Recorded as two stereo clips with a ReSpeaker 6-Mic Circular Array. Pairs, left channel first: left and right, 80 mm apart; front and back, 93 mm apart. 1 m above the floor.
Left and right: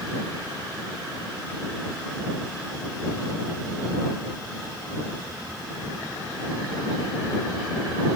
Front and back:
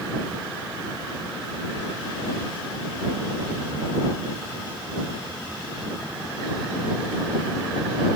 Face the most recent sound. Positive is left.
No sound to turn to.